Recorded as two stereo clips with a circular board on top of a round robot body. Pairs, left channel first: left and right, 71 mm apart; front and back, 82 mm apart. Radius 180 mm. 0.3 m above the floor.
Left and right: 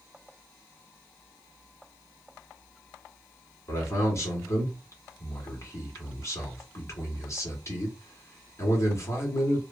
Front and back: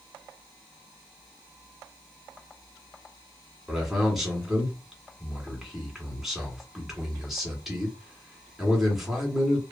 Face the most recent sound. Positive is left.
turn(degrees=95)